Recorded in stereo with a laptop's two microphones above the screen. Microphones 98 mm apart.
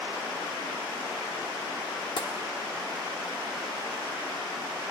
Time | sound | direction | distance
2.2 | tapping | 55° left (ahead or behind) | 1.1 m